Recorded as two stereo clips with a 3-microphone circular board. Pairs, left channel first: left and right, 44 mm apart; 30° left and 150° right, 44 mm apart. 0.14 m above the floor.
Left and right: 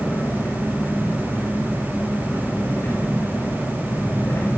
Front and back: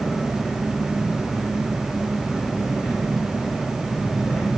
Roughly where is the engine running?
Behind left.